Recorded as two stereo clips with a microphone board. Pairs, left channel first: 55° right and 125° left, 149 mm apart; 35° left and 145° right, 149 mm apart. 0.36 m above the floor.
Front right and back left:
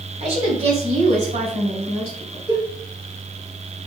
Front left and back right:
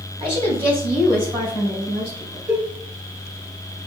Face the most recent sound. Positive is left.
turn(degrees=-75)